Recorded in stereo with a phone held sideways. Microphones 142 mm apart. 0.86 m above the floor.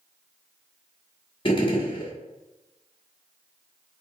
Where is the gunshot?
35° left (ahead or behind), 1.0 m.